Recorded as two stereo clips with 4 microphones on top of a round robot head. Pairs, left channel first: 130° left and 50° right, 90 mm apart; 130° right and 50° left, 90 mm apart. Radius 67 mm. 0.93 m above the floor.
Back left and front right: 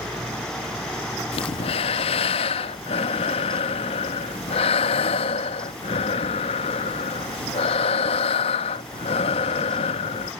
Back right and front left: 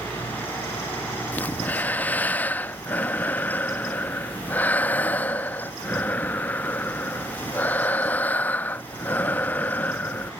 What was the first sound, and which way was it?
Breathing, 155° left.